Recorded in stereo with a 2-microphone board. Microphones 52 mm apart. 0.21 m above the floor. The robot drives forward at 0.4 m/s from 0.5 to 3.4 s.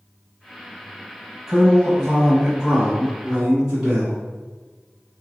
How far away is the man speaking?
About 1.1 m.